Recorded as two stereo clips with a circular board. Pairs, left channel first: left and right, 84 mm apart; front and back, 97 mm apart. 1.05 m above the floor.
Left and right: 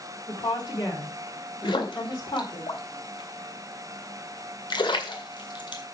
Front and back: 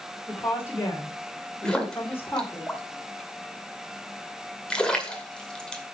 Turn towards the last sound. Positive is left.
turn(degrees=80)